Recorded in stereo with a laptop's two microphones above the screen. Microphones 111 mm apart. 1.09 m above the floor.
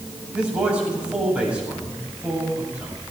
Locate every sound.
0.3 s a man speaking: 10° right (ahead or behind), 7.5 m